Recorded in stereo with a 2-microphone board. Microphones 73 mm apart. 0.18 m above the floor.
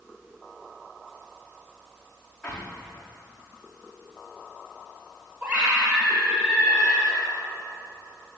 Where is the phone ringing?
No phone ringing in this recording.